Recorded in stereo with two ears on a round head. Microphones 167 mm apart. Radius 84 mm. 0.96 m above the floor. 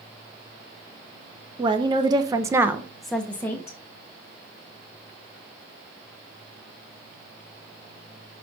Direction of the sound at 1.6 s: 25° right (ahead or behind).